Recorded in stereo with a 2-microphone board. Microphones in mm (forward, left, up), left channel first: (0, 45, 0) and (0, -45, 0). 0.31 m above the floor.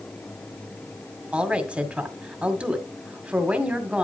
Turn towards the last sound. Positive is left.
turn(degrees=-15)  # may be behind; listen again after turning